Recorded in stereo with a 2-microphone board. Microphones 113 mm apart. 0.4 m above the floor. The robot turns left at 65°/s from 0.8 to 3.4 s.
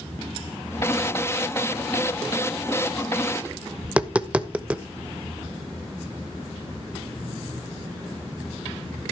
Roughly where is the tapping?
Centre.